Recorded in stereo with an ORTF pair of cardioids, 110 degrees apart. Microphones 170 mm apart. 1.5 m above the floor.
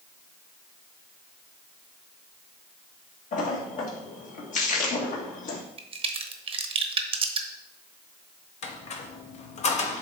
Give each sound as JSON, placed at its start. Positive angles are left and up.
{"t": 3.3, "sound": "a splash", "azimuth_deg": 50, "distance_m": 1.8}
{"t": 5.8, "sound": "a crack", "azimuth_deg": -35, "distance_m": 0.9}
{"t": 8.6, "sound": "a squeak", "azimuth_deg": 45, "distance_m": 1.1}